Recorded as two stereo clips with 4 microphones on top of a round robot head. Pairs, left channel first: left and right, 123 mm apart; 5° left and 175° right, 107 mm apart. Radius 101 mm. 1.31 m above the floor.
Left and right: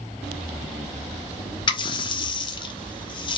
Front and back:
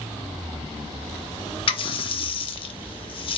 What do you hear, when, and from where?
1.7 s a running tap: 40° left, 0.6 m